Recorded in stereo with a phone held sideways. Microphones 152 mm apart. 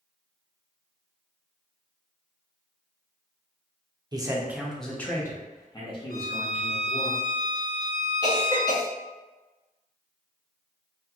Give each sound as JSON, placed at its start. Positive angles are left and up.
{"t": 4.1, "sound": "a man speaking", "side_deg": -30, "distance_m": 0.6}
{"t": 6.1, "sound": "a violin", "side_deg": 75, "distance_m": 0.5}
{"t": 8.2, "sound": "a cough", "side_deg": 25, "distance_m": 1.1}